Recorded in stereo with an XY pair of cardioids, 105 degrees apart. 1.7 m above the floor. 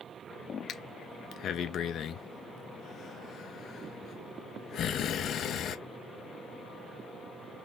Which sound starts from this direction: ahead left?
Breathing, at 0.7 s.